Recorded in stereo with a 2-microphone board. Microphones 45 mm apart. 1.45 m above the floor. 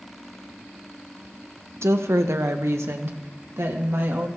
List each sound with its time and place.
1.8 s a woman speaking: 70° right (ahead or behind), 1.0 m